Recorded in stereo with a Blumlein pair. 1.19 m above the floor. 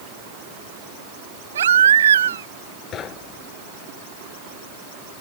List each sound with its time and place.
1.6 s a baby crying: 65° right
2.9 s knocking: 30° left